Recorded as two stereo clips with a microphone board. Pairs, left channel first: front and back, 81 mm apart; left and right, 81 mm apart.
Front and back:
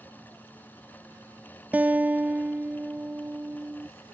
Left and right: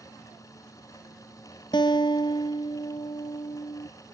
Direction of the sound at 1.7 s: 110° left.